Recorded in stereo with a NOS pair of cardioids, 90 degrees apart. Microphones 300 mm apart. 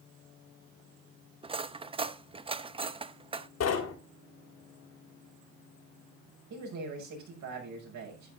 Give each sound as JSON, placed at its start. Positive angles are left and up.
{"t": 1.4, "sound": "cutlery clinking", "azimuth_deg": -20, "distance_m": 0.7}
{"t": 3.6, "sound": "knocking", "azimuth_deg": 55, "distance_m": 2.5}
{"t": 6.5, "sound": "a man speaking", "azimuth_deg": -70, "distance_m": 6.0}